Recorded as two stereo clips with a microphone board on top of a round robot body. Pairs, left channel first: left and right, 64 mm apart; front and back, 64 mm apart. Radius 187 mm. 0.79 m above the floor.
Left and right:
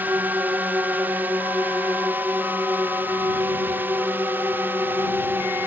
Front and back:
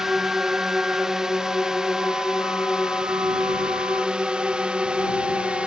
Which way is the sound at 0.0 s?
105° right.